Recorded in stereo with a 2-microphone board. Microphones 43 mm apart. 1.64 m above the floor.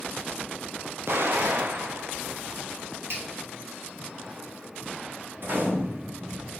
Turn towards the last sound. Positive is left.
turn(degrees=-55)  # may be behind; listen again after turning